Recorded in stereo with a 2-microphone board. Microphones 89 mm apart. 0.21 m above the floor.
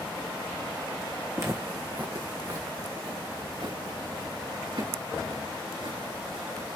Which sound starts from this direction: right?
Footsteps, at 1.4 s.